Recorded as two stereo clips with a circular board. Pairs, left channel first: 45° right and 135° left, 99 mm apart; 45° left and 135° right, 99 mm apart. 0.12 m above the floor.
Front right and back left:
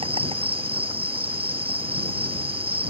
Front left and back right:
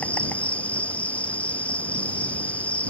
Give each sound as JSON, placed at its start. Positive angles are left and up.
{"t": 0.0, "sound": "an insect", "azimuth_deg": 120}